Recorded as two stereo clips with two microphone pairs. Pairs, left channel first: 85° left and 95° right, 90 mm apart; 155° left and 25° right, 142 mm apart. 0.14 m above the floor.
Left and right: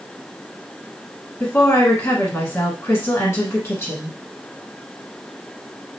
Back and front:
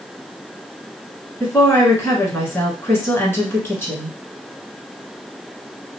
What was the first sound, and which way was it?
A woman speaking, 105° left.